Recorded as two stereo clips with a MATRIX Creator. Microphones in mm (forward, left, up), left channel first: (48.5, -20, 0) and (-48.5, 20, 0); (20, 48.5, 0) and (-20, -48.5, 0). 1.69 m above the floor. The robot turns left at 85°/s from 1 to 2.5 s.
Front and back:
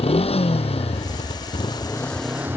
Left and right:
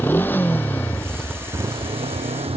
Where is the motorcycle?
5° right; by 2.6 s 130° right.